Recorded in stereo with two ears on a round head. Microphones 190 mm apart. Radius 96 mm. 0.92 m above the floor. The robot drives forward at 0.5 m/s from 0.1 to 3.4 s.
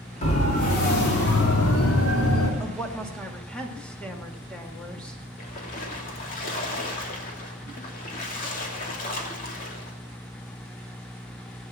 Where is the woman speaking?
5° left (ahead or behind), 2 m.